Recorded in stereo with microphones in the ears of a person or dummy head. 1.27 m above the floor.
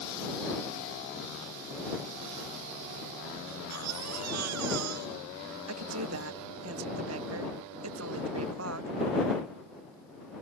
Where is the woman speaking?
75° right (ahead or behind).